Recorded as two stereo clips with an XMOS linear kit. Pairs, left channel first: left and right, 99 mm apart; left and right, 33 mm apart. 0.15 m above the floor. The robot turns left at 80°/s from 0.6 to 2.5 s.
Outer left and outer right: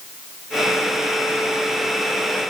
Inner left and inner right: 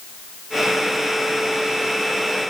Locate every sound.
Only background noise.